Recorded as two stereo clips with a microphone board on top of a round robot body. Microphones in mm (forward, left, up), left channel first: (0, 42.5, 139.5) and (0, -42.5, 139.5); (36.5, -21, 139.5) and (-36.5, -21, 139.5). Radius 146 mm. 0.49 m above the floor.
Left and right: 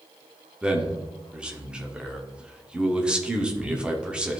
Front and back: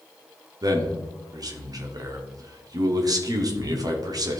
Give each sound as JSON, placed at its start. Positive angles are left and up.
{"t": 0.6, "sound": "a man speaking", "azimuth_deg": -165, "distance_m": 1.6}